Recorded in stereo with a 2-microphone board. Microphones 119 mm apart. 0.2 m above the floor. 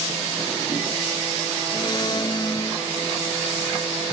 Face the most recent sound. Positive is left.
turn(degrees=35)  # may be behind; listen again after turning